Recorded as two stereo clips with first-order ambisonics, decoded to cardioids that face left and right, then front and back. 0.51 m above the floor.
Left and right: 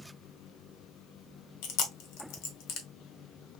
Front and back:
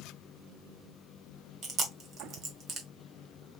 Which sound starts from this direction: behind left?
Chewing, at 1.6 s.